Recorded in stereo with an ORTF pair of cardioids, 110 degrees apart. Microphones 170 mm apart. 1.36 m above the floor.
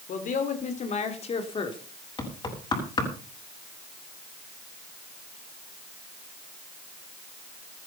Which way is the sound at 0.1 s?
55° left.